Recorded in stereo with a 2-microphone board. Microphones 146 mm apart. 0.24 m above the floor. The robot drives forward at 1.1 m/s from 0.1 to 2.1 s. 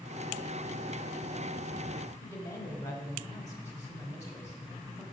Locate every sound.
2.2 s a woman speaking: 20° left (ahead or behind), 1.1 m